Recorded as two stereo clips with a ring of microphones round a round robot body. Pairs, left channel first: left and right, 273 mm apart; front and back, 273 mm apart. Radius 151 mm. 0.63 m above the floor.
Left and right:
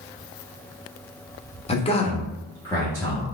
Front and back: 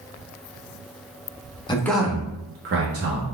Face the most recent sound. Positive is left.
turn(degrees=170)